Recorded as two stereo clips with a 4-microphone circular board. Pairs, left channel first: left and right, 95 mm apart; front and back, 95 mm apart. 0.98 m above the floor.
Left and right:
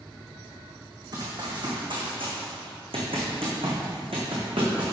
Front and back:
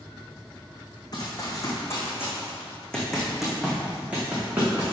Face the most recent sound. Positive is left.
turn(degrees=-115)